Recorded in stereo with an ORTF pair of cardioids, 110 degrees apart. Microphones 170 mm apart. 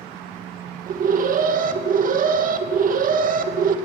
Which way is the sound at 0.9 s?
50° right.